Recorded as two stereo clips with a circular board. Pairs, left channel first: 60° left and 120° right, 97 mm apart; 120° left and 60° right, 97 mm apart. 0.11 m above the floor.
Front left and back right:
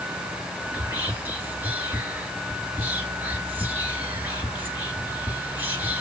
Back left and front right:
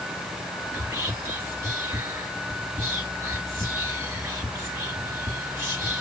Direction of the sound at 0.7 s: 65° right.